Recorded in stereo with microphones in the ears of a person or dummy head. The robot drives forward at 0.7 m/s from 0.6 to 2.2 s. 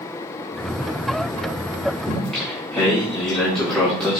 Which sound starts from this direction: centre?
Singing, at 2.1 s.